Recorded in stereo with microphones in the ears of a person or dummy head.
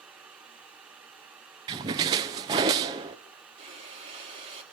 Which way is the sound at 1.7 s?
25° right (ahead or behind).